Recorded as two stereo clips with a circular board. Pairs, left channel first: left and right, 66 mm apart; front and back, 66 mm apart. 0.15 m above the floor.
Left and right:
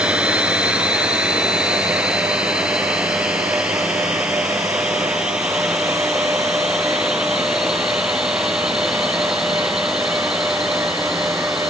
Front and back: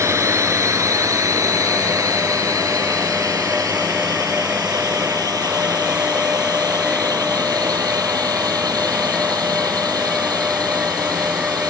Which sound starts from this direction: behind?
A drone, at 0.0 s.